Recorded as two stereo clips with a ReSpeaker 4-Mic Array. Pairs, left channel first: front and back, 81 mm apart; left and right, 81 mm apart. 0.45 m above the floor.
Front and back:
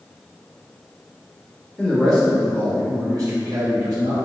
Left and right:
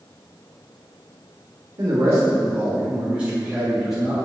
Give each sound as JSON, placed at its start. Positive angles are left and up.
{"t": 1.8, "sound": "a man speaking", "azimuth_deg": -70, "distance_m": 1.6}